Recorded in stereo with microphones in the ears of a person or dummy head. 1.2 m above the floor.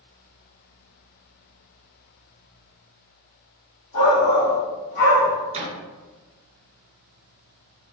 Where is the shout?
75° left (ahead or behind), 1.7 m.